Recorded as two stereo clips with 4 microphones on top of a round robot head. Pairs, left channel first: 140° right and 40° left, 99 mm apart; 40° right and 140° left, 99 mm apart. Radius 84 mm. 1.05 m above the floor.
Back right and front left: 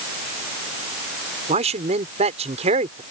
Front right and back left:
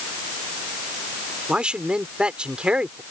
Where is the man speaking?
55° left.